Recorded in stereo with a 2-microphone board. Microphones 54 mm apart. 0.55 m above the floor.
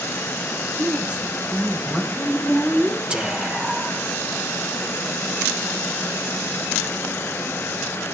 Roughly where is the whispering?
Centre.